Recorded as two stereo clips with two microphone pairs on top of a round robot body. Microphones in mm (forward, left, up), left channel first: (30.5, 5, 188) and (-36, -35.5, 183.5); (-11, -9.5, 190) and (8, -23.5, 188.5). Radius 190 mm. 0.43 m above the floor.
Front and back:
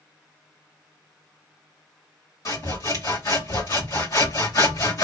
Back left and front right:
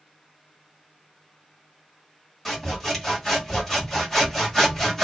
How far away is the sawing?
About 2 m.